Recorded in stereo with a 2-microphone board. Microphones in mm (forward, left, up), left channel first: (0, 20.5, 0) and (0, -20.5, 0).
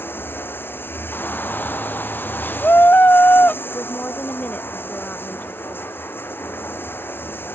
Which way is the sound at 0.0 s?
65° left (ahead or behind).